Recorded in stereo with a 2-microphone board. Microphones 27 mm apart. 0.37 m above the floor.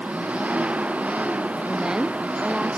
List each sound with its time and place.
0.0 s an engine running: 65° right (ahead or behind)
1.7 s a woman speaking: 25° right (ahead or behind)